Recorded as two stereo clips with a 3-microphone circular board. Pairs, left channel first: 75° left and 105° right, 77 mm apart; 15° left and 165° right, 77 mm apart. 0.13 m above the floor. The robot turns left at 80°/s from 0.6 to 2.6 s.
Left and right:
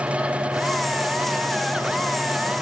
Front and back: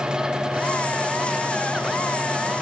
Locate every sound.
Only background noise.